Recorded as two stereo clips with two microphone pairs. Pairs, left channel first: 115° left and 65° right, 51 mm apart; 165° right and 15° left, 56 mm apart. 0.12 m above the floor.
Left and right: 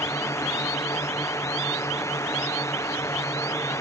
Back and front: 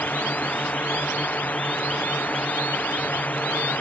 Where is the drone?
130° left.